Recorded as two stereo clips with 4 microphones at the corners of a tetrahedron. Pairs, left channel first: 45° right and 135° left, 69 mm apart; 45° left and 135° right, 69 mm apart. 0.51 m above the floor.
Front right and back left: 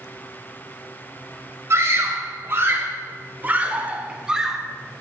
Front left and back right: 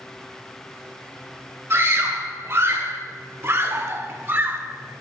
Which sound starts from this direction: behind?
A scream, at 1.7 s.